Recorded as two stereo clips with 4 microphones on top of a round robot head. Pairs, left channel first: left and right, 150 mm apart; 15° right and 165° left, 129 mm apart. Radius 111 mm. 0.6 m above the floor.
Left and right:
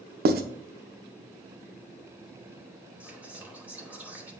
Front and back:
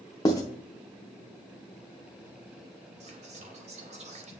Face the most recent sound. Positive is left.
turn(degrees=-170)